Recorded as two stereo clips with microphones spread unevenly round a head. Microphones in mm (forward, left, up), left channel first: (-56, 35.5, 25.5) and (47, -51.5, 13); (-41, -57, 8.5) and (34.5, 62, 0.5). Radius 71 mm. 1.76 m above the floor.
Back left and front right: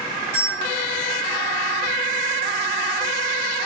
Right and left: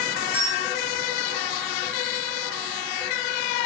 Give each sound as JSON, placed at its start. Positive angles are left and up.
{"t": 0.3, "sound": "a bell", "azimuth_deg": 35, "distance_m": 1.8}